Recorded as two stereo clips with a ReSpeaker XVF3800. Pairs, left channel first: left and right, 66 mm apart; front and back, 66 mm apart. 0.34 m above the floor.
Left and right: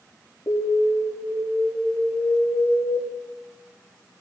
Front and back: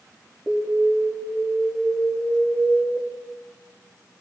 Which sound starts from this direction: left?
An alarm, at 0.5 s.